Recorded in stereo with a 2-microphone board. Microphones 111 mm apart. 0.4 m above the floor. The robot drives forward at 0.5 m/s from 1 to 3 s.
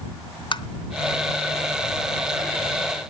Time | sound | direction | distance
0.5 | tapping | 45° left (ahead or behind) | 0.8 m